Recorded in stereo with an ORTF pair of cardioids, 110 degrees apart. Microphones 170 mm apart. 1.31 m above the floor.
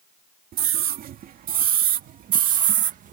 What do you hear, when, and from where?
0.5 s a scream: 60° right; by 3.1 s 50° right